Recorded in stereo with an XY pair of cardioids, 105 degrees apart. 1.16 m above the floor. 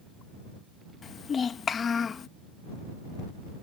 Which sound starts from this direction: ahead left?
A child speaking, at 1.0 s.